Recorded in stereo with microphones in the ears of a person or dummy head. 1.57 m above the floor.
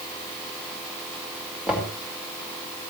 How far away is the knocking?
About 5 m.